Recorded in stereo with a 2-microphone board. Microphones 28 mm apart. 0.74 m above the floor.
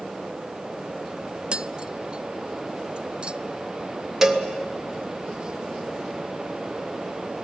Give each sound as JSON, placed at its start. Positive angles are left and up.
{"t": 1.5, "sound": "tapping", "side_deg": -40, "distance_m": 0.6}
{"t": 4.2, "sound": "a cowbell", "side_deg": -15, "distance_m": 1.4}